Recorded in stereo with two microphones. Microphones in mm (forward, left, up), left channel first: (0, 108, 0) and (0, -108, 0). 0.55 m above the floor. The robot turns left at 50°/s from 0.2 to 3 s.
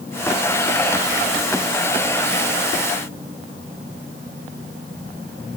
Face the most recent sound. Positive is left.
No sound to turn to.